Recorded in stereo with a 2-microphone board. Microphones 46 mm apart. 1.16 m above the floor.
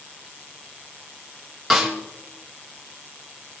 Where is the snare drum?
5° right (ahead or behind), 3 m.